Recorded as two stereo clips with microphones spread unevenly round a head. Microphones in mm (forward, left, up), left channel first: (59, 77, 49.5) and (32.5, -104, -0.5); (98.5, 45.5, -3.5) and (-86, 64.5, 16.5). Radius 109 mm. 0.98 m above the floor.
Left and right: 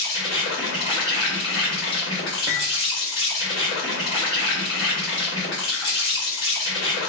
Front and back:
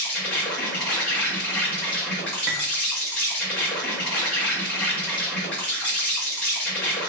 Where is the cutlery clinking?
175° right, 0.9 m.